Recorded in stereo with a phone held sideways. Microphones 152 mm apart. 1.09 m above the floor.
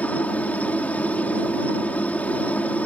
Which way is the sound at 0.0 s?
10° left (ahead or behind).